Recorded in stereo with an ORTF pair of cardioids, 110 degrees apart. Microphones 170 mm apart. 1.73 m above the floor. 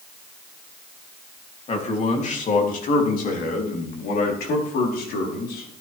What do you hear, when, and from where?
1.7 s a man speaking: 40° left, 3 m; by 5.7 s 75° left, 5 m